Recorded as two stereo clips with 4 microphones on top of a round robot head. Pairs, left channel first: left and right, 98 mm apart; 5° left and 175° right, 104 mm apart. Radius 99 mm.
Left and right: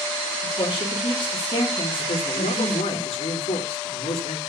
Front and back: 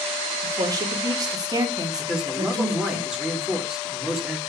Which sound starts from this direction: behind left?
A woman speaking, at 0.4 s.